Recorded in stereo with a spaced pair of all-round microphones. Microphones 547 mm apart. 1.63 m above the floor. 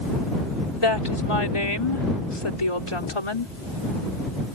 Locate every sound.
0.8 s a woman speaking: 65° left (ahead or behind)